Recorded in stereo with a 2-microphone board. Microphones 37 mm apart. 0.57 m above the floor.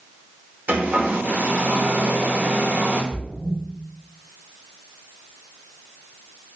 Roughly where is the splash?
Right.